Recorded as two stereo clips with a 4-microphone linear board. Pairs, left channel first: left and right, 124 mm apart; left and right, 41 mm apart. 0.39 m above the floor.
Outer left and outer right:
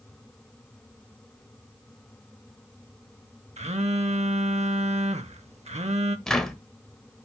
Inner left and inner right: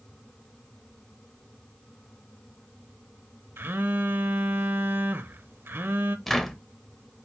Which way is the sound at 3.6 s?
60° right (ahead or behind).